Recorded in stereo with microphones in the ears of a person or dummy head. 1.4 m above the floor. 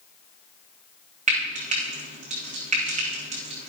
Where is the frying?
40° right (ahead or behind), 2.5 m.